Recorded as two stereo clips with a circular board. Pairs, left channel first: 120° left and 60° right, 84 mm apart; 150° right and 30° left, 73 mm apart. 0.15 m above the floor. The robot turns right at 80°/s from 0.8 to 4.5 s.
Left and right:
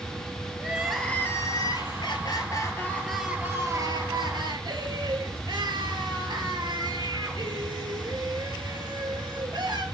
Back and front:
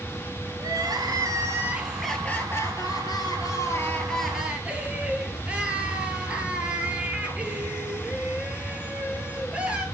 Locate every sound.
0.6 s crying: 20° left, 1.4 m; by 9.8 s 40° right, 1.4 m